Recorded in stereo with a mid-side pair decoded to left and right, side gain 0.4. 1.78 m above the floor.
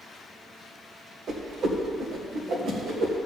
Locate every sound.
1.3 s a whoosh: 65° right, 1.7 m